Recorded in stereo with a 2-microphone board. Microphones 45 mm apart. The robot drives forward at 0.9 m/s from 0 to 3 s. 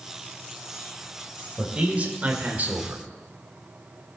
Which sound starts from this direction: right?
A man speaking, at 1.6 s.